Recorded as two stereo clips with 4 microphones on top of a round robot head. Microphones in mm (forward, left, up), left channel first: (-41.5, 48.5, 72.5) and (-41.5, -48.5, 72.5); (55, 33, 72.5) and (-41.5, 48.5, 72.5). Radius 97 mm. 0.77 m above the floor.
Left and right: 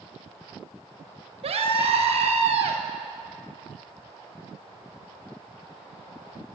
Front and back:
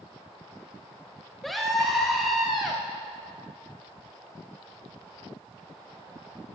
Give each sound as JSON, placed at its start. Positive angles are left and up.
{"t": 1.4, "sound": "a scream", "azimuth_deg": -100, "distance_m": 4.5}